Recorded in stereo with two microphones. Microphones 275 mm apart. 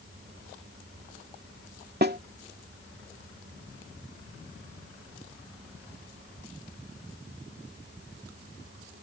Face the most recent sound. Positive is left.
turn(degrees=-40)  # may be behind; listen again after turning